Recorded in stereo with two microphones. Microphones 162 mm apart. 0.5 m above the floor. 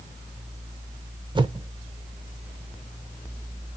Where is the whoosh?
30° right (ahead or behind), 0.5 m.